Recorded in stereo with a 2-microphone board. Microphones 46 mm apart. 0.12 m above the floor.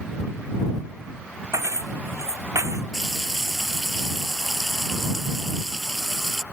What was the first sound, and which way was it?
Keys jangling, 75° right (ahead or behind).